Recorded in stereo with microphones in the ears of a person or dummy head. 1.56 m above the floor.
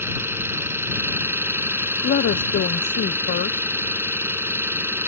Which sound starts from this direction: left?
A woman speaking, at 2.0 s.